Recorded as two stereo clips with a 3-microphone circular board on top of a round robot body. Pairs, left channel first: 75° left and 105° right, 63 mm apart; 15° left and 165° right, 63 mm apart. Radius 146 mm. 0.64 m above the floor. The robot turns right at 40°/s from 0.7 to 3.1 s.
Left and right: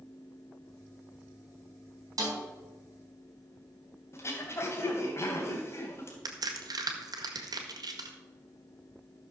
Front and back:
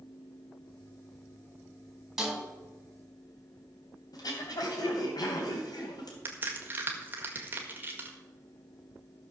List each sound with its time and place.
2.2 s a snare drum: 80° right, 4 m; by 2.4 s 75° right, 4 m
4.1 s throat clearing: 25° left, 3 m
6.2 s a crack: 105° right, 1.8 m